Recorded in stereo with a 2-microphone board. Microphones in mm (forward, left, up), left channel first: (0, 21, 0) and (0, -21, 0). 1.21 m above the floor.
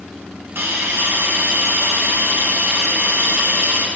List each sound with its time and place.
0.6 s a hiss: 60° right (ahead or behind), 1.1 m